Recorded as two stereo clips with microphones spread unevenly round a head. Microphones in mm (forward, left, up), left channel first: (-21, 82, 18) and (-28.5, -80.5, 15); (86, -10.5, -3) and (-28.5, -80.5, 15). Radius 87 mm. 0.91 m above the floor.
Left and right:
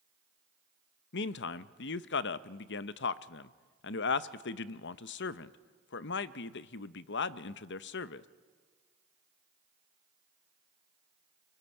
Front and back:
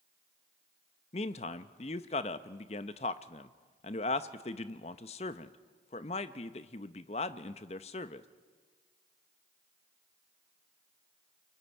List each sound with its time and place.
1.1 s a man speaking: 75° left, 0.6 m